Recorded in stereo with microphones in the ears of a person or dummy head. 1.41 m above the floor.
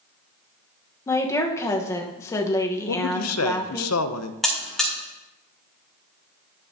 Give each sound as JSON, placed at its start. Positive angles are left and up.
{"t": 1.1, "sound": "a woman speaking", "side_deg": 20, "distance_m": 1.1}
{"t": 2.9, "sound": "a man speaking", "side_deg": 75, "distance_m": 0.6}
{"t": 4.4, "sound": "a buzzer", "side_deg": 0, "distance_m": 1.5}